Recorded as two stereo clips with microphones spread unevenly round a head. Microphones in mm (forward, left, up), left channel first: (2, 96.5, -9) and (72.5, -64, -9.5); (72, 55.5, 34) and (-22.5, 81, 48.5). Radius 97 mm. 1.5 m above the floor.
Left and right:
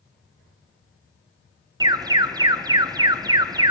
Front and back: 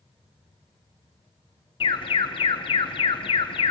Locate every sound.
1.8 s an alarm: 10° right, 0.5 m